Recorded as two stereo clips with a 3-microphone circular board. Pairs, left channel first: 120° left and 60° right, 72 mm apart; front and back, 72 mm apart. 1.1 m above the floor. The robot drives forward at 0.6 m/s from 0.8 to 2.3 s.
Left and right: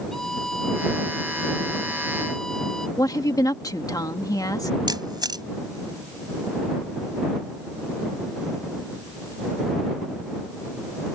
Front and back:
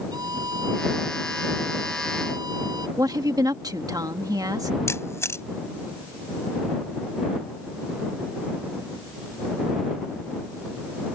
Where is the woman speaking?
150° left.